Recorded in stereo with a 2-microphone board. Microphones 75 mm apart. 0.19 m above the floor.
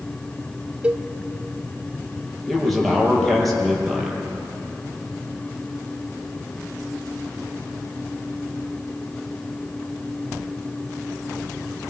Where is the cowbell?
20° right (ahead or behind), 0.5 m.